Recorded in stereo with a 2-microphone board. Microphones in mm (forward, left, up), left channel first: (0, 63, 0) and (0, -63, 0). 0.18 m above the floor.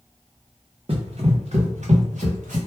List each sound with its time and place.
0.9 s running footsteps: 45° right (ahead or behind), 1.1 m; by 2.6 s 80° right, 1.6 m